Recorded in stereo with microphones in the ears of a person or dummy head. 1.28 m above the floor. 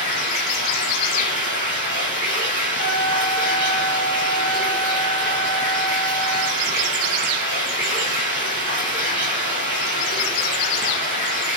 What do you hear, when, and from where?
0.0 s running water: 15° right (ahead or behind), 1.8 m
2.8 s a trumpet: 40° left (ahead or behind), 0.9 m